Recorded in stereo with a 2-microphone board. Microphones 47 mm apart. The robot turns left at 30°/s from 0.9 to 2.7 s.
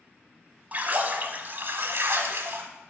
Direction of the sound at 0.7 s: 50° right.